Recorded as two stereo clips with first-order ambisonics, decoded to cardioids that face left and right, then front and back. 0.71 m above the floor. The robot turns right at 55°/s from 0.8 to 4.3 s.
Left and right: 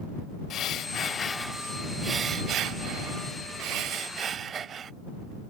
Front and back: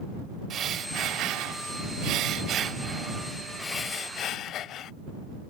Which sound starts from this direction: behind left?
Breathing, at 0.5 s.